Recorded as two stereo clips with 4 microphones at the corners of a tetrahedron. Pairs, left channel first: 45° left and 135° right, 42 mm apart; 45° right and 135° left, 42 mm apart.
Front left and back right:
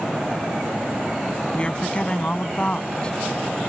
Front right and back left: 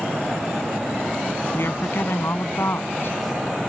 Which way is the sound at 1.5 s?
20° right.